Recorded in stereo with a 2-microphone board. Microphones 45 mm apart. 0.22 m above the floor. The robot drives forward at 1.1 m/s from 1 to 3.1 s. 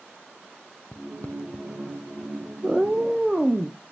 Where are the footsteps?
20° left (ahead or behind), 0.6 m; by 2.4 s 60° left (ahead or behind), 0.9 m.